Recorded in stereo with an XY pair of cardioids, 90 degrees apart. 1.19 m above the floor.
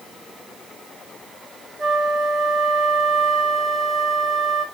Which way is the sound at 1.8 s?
45° right.